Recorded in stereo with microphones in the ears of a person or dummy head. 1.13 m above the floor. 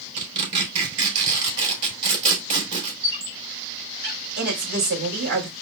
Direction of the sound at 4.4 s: 65° right (ahead or behind).